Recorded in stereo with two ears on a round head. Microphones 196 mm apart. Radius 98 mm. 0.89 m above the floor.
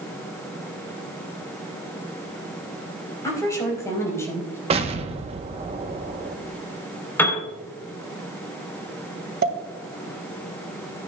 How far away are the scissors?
I don't hear scissors.